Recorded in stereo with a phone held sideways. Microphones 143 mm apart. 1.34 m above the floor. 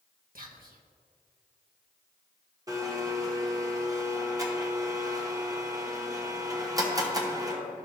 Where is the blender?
25° right (ahead or behind), 1.0 m.